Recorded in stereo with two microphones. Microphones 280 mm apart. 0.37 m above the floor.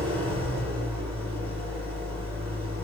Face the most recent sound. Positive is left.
turn(degrees=-60)  # may be behind; listen again after turning